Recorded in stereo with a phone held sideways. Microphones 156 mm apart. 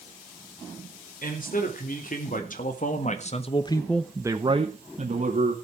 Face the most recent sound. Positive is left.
turn(degrees=-60)  # may be behind; listen again after turning